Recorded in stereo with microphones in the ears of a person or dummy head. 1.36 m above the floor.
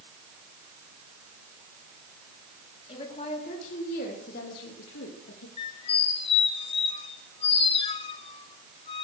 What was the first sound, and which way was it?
A woman speaking, 30° left (ahead or behind).